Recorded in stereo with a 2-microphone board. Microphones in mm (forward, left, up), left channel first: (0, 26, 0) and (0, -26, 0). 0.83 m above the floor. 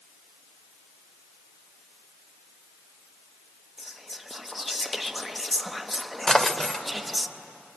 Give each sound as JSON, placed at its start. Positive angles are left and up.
{"t": 3.8, "sound": "whispering", "side_deg": 0, "distance_m": 0.8}
{"t": 6.3, "sound": "a drawer", "side_deg": 15, "distance_m": 0.8}